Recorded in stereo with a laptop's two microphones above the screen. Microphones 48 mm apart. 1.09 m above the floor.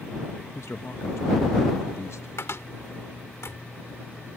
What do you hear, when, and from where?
0.6 s a man speaking: 70° left (ahead or behind)
2.4 s a cupboard door: 65° left (ahead or behind)